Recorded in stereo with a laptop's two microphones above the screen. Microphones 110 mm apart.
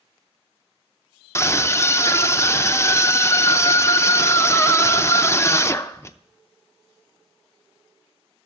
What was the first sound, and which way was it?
A scream, 25° left (ahead or behind).